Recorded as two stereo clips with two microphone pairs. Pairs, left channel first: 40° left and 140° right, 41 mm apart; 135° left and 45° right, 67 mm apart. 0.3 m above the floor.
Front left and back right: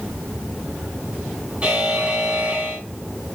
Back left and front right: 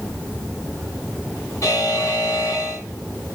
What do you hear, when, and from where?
1.6 s a buzzer: 160° left, 2.5 m